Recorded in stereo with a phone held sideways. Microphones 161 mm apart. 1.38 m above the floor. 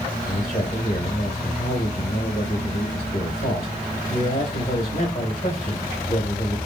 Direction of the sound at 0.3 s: 40° left (ahead or behind).